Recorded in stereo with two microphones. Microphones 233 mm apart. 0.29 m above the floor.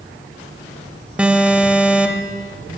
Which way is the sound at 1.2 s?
5° right (ahead or behind).